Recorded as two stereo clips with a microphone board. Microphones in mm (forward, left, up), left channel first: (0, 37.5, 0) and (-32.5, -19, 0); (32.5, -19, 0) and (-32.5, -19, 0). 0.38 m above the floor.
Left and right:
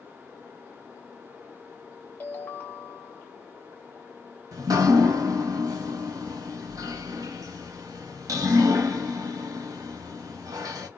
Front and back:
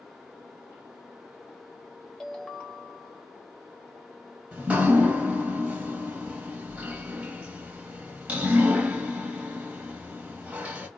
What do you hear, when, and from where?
2.2 s a ringtone: 65° left, 0.8 m
4.5 s dripping: 110° right, 0.9 m